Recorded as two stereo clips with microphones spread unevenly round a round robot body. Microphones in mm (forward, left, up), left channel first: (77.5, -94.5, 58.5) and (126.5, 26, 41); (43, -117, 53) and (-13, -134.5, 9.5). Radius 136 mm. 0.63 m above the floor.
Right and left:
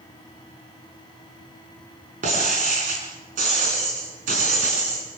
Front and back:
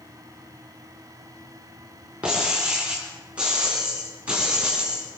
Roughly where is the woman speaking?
I don't hear a woman speaking.